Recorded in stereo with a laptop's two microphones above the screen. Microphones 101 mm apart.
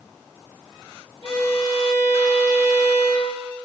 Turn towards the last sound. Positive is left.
turn(degrees=35)  # may be behind; listen again after turning